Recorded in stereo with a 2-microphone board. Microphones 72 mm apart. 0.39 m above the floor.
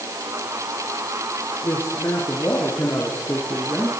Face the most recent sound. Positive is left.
turn(degrees=25)  # may be behind; listen again after turning